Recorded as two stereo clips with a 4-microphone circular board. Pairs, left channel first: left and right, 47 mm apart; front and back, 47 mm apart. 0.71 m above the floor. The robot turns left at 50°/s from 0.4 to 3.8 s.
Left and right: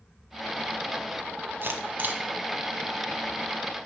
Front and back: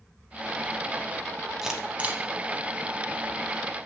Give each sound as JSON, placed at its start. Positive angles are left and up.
{"t": 1.6, "sound": "a camera shutter", "azimuth_deg": -105, "distance_m": 0.8}